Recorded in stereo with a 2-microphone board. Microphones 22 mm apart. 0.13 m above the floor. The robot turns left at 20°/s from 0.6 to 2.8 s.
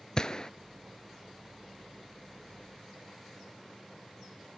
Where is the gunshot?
35° left (ahead or behind), 0.5 m.